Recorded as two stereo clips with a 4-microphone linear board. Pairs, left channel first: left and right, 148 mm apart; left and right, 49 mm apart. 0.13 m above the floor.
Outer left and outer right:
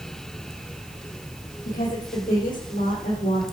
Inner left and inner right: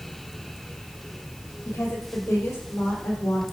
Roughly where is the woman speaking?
Left.